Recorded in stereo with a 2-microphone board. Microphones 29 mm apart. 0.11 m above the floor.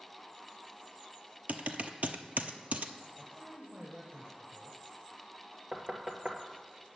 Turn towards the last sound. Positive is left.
turn(degrees=-40)  # may be behind; listen again after turning